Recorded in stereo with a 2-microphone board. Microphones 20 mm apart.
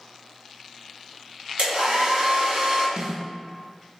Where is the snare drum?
50° right (ahead or behind), 1.9 m.